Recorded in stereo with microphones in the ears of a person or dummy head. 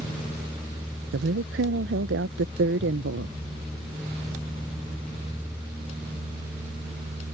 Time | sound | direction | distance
1.1 | a woman speaking | 55° right (ahead or behind) | ?